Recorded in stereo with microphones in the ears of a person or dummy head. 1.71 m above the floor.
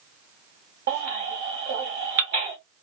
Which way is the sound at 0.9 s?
50° right (ahead or behind).